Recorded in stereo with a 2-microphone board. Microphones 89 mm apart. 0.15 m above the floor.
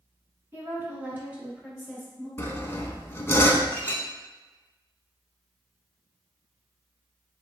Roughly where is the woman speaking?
Right.